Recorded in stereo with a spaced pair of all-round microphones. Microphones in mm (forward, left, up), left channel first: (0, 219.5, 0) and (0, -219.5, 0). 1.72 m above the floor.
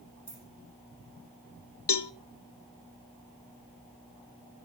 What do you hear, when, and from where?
0.3 s keys jangling: 25° left (ahead or behind), 10 m
1.9 s a cowbell: 65° left (ahead or behind), 0.7 m